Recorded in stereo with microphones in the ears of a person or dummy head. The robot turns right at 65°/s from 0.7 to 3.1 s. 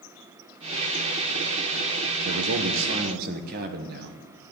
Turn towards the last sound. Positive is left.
turn(degrees=-50)